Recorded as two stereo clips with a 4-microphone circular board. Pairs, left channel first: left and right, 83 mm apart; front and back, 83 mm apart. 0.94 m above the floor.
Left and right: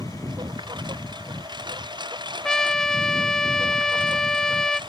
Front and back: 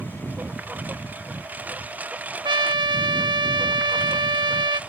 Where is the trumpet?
170° left.